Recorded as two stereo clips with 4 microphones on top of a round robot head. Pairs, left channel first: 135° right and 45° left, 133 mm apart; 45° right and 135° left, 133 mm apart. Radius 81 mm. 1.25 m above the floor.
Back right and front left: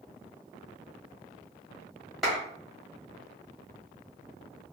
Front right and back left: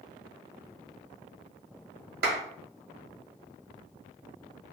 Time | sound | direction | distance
2.2 | a clap | 135° left | 1.5 m